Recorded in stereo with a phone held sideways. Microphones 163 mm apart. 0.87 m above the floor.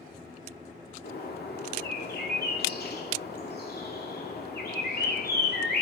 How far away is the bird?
About 2 m.